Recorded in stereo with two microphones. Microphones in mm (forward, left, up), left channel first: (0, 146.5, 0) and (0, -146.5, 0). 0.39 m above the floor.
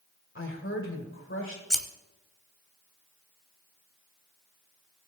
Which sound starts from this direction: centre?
Scissors, at 1.7 s.